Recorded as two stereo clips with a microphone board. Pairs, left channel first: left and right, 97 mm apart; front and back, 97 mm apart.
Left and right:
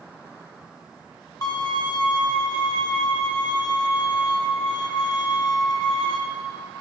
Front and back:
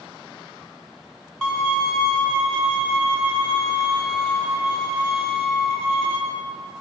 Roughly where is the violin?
Left.